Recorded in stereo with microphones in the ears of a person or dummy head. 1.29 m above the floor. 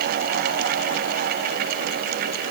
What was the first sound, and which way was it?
Only background noise.